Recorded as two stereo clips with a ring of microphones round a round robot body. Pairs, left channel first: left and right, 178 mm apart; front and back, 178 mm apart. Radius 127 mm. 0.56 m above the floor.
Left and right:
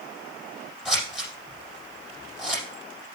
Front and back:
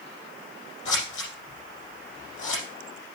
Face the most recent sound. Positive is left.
turn(degrees=0)